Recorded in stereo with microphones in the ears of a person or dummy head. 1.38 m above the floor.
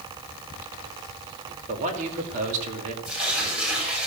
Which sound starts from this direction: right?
A man speaking, at 1.7 s.